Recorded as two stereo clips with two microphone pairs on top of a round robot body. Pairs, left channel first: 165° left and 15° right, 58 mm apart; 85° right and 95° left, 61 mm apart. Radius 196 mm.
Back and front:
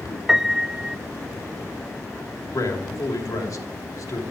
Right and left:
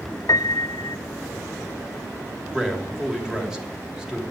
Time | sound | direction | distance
0.3 | a piano | 95° right | 0.5 m
2.5 | a man speaking | 170° left | 2.5 m